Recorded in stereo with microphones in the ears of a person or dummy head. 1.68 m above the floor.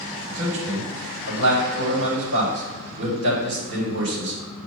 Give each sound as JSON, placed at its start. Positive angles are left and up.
{"t": 0.3, "sound": "a man speaking", "side_deg": -75, "distance_m": 1.9}